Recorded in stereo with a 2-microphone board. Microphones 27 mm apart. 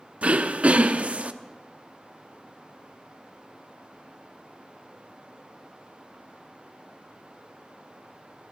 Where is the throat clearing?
55° right (ahead or behind), 0.6 m.